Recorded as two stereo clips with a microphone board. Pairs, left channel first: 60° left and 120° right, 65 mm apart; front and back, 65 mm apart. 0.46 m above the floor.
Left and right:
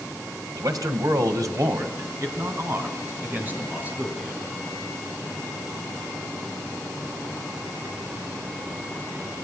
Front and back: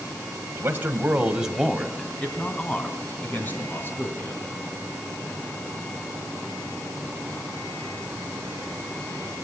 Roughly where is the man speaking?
Behind right.